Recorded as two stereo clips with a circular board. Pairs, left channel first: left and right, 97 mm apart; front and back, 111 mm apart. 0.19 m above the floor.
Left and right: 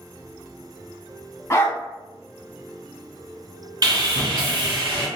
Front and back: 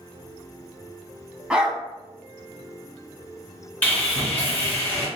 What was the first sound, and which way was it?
A dog barking, 105° left.